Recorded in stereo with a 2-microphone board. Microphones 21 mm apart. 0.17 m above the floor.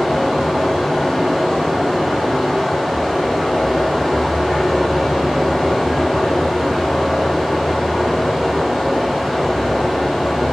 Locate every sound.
0.0 s running water: 5° left (ahead or behind), 1.6 m